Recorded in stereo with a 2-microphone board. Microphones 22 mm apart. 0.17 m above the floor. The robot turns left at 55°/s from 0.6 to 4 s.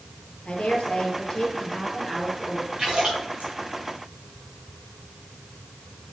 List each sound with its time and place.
0.5 s a woman speaking: 85° left, 4 m; by 2.7 s 30° right, 4 m
2.8 s a splash: 40° right (ahead or behind), 4 m; by 3.5 s 80° right, 4 m